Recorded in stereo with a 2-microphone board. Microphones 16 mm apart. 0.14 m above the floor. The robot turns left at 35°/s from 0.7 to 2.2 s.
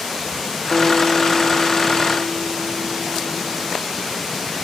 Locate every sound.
0.7 s a guitar: 10° left; by 3.8 s 45° right